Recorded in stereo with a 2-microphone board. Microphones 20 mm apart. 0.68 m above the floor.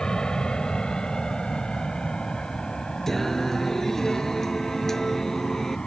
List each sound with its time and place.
0.0 s an aircraft: 45° left (ahead or behind)
3.1 s singing: 15° left (ahead or behind)